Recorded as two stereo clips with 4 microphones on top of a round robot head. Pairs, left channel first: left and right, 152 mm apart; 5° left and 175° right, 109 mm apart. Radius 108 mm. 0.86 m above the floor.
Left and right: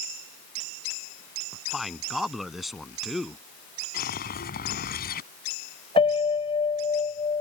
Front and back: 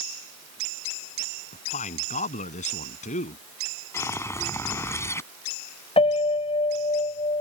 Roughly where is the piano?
Ahead left.